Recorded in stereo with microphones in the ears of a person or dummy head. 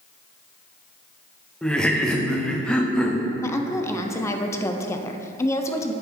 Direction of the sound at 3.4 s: 15° left (ahead or behind).